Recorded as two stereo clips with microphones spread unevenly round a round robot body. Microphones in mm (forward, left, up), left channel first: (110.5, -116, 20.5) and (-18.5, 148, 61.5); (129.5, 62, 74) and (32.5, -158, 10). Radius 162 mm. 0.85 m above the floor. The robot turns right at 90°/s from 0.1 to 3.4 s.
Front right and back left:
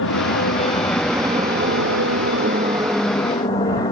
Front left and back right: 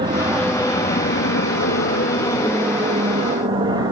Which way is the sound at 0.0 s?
65° right.